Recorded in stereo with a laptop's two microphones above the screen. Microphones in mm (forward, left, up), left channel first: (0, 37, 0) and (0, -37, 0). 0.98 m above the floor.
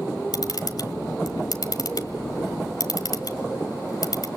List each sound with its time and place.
0.3 s a camera shutter: 65° left (ahead or behind), 1.8 m